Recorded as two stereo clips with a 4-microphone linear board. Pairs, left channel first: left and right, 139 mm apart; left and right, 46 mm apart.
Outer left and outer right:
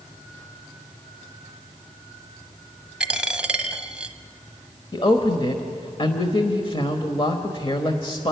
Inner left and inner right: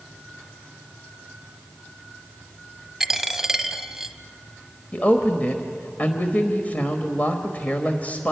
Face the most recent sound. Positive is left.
turn(degrees=35)  # may be behind; listen again after turning